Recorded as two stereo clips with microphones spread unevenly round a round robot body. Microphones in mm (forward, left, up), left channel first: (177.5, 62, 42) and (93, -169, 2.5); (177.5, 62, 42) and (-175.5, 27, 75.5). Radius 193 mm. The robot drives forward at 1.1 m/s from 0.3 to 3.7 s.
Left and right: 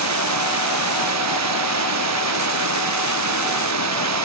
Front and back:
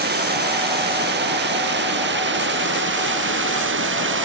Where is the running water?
110° right; by 4.2 s 115° right.